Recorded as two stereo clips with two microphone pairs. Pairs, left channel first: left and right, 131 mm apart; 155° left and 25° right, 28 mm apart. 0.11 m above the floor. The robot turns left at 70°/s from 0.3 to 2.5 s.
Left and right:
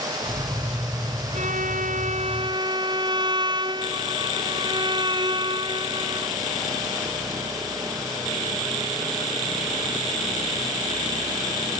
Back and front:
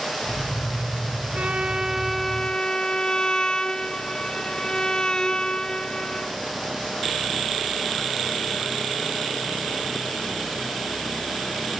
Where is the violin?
65° right; by 6.4 s 145° right.